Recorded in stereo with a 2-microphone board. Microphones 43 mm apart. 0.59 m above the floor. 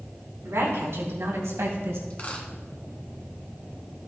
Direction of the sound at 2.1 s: 30° left (ahead or behind).